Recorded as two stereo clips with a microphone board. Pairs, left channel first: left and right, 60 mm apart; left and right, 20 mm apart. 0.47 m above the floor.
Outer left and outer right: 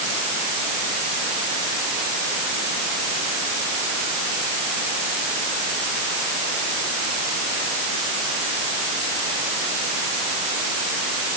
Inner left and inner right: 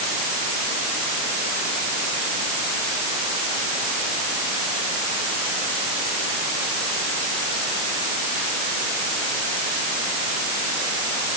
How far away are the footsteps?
I don't hear footsteps.